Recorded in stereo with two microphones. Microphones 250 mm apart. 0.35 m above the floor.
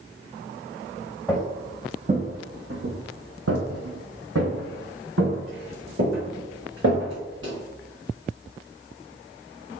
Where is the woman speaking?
I don't hear a woman speaking.